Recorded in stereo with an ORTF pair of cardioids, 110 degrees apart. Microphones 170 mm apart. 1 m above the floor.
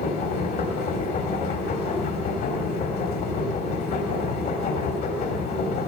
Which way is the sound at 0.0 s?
65° left.